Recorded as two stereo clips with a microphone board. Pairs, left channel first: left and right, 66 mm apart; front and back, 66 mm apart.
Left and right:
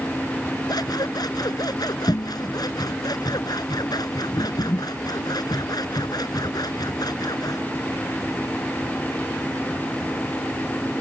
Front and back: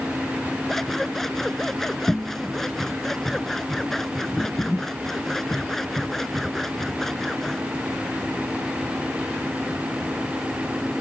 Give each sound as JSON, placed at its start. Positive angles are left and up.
{"t": 0.7, "sound": "scissors", "azimuth_deg": 85}